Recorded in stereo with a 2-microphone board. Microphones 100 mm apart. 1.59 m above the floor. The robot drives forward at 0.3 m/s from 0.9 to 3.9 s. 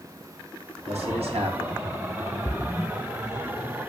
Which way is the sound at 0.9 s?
85° right.